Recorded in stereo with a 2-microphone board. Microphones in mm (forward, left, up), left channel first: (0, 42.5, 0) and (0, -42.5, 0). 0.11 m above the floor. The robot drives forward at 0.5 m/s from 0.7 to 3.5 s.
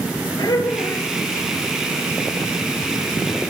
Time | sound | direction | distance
0.4 | laughter | 60° left (ahead or behind) | 3 m